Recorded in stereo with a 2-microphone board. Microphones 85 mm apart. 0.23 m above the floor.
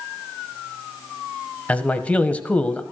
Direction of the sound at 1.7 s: 15° left (ahead or behind).